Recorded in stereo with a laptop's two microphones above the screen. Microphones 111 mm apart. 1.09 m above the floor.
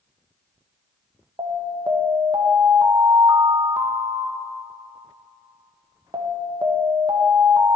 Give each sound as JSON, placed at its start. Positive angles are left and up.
{"t": 1.4, "sound": "an alarm", "side_deg": -45, "distance_m": 1.2}